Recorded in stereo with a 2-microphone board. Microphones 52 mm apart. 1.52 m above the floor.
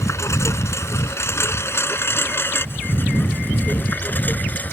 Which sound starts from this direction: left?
A lawn mower, at 0.0 s.